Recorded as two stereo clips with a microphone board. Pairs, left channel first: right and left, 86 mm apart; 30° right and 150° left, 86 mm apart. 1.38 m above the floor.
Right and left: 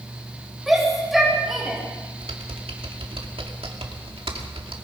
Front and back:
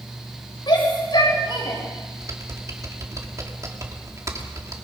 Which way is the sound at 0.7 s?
Straight ahead.